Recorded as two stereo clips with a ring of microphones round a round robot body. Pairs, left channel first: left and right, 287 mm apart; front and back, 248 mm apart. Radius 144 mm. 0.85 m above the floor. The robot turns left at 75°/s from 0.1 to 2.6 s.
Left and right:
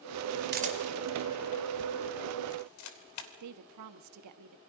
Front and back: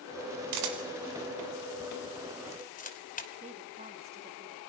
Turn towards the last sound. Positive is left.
turn(degrees=-115)